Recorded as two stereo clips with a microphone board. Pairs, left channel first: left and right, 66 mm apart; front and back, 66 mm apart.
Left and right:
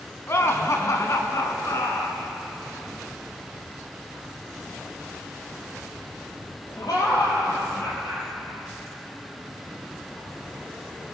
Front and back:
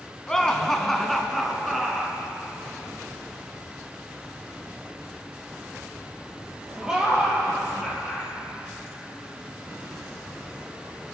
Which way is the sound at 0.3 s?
75° left.